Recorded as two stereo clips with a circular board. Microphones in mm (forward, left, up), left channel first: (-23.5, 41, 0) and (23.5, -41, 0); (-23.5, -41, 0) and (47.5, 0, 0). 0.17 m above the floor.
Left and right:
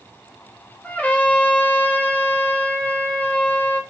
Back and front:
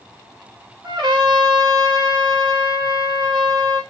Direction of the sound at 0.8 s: 45° left.